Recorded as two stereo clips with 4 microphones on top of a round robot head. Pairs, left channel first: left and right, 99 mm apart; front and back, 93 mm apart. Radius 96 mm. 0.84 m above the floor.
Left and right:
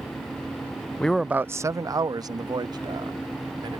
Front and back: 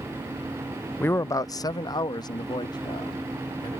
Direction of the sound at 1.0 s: 35° left.